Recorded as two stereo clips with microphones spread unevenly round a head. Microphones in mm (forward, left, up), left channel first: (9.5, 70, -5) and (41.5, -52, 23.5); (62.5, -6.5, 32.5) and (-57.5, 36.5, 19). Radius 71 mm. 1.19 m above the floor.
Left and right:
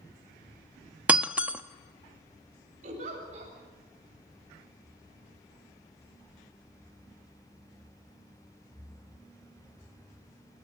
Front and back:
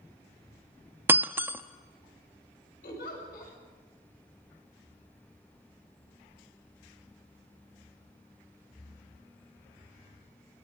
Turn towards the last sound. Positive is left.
turn(degrees=-45)